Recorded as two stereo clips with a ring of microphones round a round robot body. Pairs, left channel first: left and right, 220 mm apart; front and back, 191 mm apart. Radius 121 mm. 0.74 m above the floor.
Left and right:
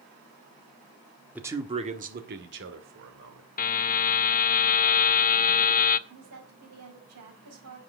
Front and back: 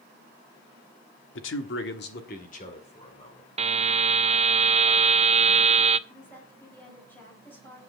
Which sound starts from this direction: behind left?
A buzzer, at 3.6 s.